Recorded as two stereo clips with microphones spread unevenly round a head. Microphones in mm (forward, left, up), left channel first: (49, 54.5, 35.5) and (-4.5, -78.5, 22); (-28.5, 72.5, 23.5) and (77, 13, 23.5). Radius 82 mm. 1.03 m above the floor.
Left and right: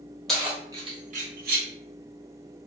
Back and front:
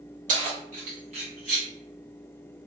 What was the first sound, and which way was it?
Keys jangling, 20° right.